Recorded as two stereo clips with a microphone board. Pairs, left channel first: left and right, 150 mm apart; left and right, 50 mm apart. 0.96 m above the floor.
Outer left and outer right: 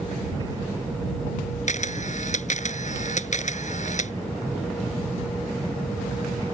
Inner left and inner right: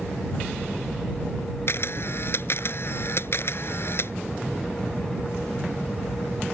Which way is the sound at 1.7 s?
55° left (ahead or behind).